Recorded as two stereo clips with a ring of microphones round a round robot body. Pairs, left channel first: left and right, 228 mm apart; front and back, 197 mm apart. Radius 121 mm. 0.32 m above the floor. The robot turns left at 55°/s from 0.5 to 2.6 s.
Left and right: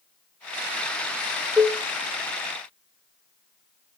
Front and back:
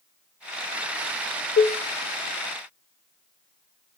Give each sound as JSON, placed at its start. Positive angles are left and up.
{"t": 1.6, "sound": "dishes clattering", "azimuth_deg": -5, "distance_m": 1.0}